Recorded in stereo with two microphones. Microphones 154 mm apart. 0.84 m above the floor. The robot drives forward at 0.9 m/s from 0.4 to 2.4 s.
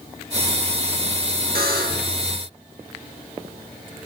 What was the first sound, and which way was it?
A buzzer, 80° right.